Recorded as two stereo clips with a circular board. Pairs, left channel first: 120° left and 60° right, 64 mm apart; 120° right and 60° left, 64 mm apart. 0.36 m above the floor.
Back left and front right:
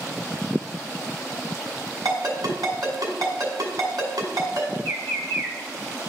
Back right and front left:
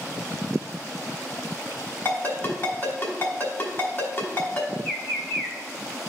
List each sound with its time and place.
2.0 s a ringtone: 70° right, 1.9 m
4.8 s a bird: 35° right, 1.0 m